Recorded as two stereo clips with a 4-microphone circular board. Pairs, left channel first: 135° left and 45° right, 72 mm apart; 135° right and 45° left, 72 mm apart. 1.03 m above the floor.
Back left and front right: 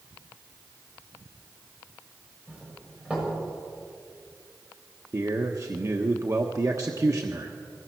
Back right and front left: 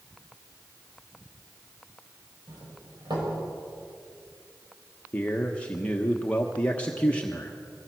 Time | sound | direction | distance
2.5 | a doorbell | 25° left | 6.5 m
5.1 | a man speaking | 70° right | 1.2 m